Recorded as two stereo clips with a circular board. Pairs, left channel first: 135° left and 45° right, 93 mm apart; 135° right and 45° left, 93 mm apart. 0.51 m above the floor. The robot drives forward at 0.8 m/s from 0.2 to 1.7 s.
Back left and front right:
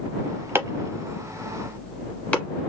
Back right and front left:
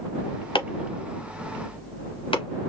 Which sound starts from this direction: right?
Chopping, at 0.6 s.